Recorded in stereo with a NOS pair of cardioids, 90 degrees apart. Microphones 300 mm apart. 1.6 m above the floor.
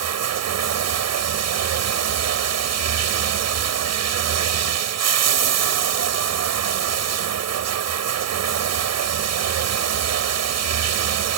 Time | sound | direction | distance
0.0 | running water | 60° right | ?